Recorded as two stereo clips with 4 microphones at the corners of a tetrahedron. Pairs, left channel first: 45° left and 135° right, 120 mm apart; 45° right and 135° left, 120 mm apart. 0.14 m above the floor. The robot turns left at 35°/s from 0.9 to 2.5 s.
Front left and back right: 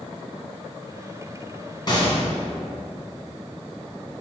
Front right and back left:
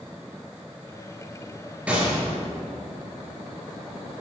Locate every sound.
1.9 s a gunshot: 65° left, 1.9 m; by 2.2 s 50° left, 1.9 m